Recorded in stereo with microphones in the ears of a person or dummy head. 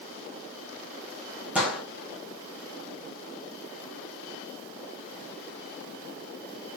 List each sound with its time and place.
1.6 s a gunshot: centre (ahead or behind), 1.2 m